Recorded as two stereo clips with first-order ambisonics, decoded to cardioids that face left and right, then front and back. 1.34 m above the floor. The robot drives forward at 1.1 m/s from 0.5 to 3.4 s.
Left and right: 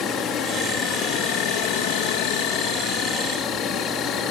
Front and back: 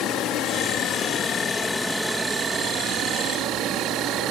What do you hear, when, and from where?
0.0 s an insect: 40° left; by 4.3 s 140° left